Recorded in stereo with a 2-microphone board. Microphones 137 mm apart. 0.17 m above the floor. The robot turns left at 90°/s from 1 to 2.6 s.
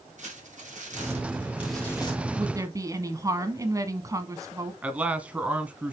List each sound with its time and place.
0.2 s crumpling: 115° right, 3.5 m; by 2.2 s 130° left, 3.5 m
2.4 s a woman speaking: 30° right (ahead or behind), 1.2 m; by 4.7 s 25° right (ahead or behind), 1.2 m
4.8 s a man speaking: 10° right (ahead or behind), 1.2 m